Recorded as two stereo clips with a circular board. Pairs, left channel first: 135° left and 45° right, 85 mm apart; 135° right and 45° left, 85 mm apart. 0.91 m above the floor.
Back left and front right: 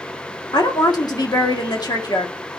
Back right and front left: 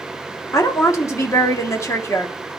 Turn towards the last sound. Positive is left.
turn(degrees=170)